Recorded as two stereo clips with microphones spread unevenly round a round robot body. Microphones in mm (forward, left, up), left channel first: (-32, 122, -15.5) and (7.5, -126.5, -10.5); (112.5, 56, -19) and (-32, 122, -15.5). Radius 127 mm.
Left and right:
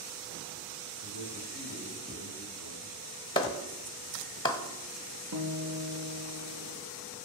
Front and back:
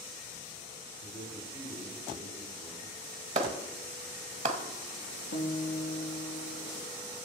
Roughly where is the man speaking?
Ahead right.